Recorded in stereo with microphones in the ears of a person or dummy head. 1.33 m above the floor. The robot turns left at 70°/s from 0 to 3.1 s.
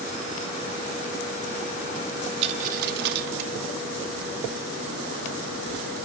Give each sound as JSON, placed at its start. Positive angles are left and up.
{"t": 2.4, "sound": "a dropped coin", "side_deg": -35, "distance_m": 1.2}